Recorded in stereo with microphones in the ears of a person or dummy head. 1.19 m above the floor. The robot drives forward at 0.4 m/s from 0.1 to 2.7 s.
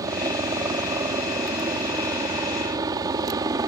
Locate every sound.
0.0 s a helicopter: 15° right (ahead or behind); by 3.7 s 20° right (ahead or behind)